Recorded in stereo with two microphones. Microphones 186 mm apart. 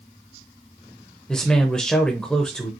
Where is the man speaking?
5° left (ahead or behind), 1.0 m.